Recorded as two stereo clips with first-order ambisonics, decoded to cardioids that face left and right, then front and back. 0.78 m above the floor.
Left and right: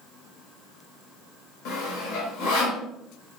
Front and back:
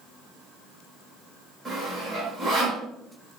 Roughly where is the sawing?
Left.